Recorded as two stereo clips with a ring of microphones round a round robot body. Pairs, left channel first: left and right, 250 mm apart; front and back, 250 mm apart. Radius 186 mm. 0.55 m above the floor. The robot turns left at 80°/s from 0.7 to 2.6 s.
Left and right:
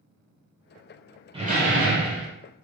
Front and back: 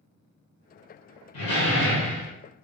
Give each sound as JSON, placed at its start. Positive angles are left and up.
{"t": 1.3, "sound": "a door slam", "azimuth_deg": -20, "distance_m": 1.3}